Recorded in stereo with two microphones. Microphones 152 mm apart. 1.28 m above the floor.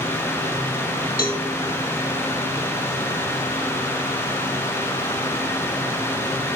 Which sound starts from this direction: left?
A cowbell, at 1.2 s.